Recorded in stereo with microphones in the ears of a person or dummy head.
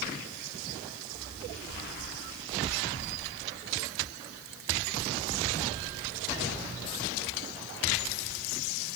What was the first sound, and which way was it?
Only background noise.